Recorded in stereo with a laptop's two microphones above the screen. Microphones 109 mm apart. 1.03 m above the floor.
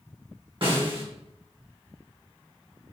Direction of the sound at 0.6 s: 55° right (ahead or behind).